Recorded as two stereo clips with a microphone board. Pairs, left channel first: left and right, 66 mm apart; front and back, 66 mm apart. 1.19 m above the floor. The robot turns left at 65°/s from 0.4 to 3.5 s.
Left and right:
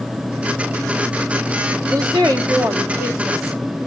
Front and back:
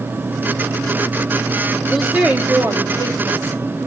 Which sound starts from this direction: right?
A woman speaking, at 1.9 s.